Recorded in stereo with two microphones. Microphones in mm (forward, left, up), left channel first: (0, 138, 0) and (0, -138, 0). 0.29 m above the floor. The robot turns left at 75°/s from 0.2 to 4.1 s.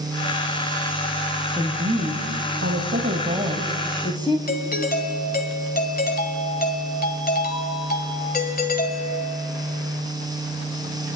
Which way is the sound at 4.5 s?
35° left (ahead or behind).